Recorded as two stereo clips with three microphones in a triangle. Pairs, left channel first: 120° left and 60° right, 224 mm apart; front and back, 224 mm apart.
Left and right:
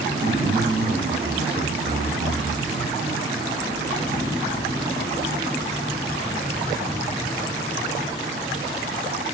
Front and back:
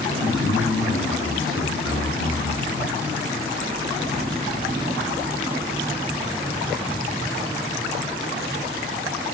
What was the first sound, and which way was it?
A man speaking, straight ahead.